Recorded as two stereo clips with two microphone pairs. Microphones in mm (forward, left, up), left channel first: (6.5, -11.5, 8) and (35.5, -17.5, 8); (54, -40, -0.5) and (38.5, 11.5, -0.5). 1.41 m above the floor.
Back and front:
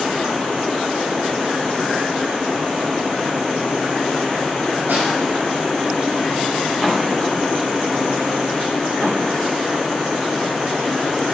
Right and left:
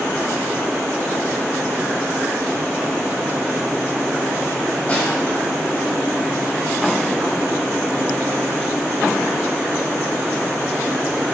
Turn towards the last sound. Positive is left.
turn(degrees=-15)